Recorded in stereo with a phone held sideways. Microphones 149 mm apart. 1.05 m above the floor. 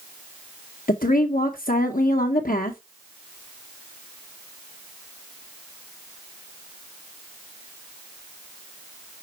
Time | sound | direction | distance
0.9 | a woman speaking | 70° left (ahead or behind) | 0.8 m